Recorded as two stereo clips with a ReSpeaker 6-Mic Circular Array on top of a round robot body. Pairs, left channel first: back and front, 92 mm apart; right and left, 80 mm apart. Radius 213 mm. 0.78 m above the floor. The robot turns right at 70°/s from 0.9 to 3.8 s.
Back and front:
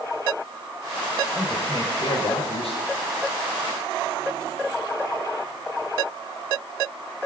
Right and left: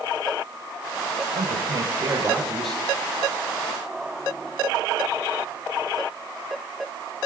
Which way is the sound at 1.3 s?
90° left.